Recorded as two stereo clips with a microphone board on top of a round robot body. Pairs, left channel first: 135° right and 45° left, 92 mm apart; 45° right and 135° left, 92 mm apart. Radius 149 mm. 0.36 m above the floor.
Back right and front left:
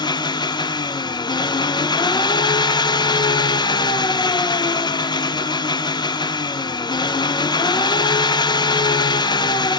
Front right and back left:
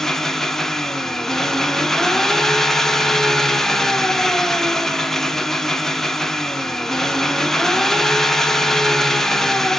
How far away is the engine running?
About 0.9 m.